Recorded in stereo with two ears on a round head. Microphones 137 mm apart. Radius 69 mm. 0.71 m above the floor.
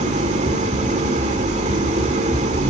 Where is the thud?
No thud in this recording.